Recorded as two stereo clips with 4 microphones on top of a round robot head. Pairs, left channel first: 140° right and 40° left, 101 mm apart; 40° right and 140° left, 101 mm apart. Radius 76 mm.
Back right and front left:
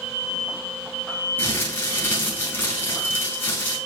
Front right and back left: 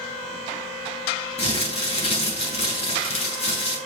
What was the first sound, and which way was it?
Crumpling, 65° right.